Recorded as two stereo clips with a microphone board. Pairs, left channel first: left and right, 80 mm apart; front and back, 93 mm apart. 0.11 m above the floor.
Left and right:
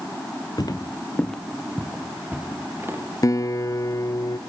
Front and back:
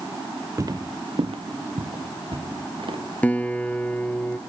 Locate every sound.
0.6 s footsteps: 125° left, 1.4 m; by 3.0 s 150° right, 3.5 m
3.2 s a guitar: 70° left, 1.1 m